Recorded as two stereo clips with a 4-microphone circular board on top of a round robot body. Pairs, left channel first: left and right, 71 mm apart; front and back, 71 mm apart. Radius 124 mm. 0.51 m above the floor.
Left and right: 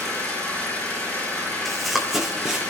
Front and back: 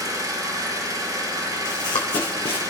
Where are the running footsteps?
Straight ahead, 1.9 m; by 2.7 s 10° right, 2.5 m.